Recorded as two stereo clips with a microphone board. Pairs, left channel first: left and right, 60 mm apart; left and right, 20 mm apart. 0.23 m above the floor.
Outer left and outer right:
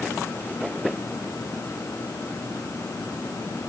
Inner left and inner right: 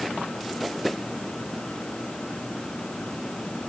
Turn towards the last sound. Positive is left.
No sound to turn to.